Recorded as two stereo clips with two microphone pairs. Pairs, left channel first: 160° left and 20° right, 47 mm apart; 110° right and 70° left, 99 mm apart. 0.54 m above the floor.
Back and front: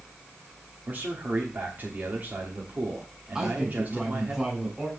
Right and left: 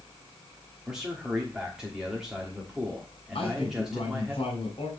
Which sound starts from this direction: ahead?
A man speaking, at 0.9 s.